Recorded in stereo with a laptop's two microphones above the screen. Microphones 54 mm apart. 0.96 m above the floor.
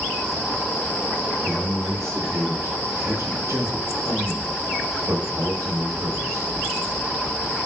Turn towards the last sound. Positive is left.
turn(degrees=-75)  # may be behind; listen again after turning